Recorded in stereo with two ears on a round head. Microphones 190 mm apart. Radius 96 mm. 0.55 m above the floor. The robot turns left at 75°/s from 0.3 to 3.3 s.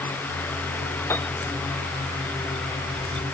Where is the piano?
10° left (ahead or behind); by 1.3 s centre (ahead or behind).